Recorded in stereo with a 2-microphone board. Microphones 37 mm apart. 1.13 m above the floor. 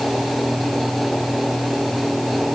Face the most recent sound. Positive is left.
No sound to turn to.